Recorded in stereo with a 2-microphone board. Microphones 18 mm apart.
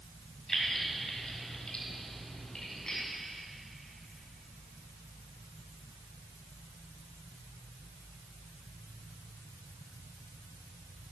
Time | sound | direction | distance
0.5 | keys jangling | 30° left (ahead or behind) | 2 m